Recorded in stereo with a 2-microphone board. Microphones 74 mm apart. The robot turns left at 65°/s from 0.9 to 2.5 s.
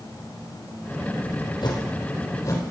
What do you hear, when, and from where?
1.6 s a whoosh: 65° left (ahead or behind), 3 m; by 2.6 s 50° left (ahead or behind), 3 m